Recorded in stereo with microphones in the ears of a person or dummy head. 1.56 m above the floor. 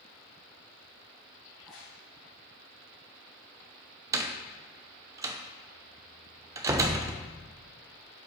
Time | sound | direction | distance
1.5 | a crack | 5° left (ahead or behind) | 3.5 m
4.1 | a door slam | 25° right (ahead or behind) | 0.7 m